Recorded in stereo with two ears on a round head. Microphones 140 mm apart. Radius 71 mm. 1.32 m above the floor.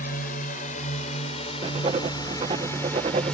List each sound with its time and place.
0.0 s a drone: 60° left (ahead or behind); by 3.3 s 5° left (ahead or behind)
1.6 s writing: 35° right (ahead or behind)